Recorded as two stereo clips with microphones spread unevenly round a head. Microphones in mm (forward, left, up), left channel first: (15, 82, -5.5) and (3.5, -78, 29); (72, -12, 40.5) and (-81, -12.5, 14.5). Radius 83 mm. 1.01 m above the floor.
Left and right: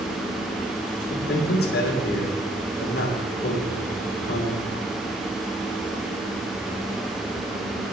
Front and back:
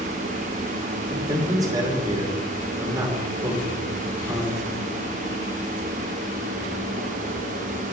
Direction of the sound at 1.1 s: 110° left.